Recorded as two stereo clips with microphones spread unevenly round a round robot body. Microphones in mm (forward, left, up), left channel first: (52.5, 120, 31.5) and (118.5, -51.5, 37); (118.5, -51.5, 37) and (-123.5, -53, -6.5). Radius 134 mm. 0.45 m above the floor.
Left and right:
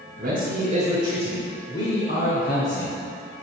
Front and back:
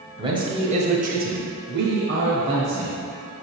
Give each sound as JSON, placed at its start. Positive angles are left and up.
{"t": 0.2, "sound": "a man speaking", "azimuth_deg": -115, "distance_m": 2.5}